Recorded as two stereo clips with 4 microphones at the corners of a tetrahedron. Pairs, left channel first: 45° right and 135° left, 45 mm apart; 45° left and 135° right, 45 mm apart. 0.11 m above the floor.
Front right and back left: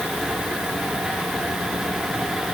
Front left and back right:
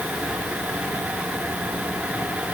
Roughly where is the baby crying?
I don't hear a baby crying.